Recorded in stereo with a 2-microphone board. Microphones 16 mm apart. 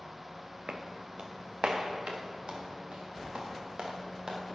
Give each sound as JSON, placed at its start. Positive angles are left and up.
{"t": 0.7, "sound": "footsteps", "side_deg": -75, "distance_m": 0.9}